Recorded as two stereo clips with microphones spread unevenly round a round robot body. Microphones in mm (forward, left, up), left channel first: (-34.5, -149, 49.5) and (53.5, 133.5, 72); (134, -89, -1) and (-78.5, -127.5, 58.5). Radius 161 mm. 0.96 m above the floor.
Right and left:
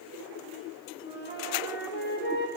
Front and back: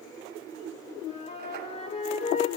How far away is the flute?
About 3.5 m.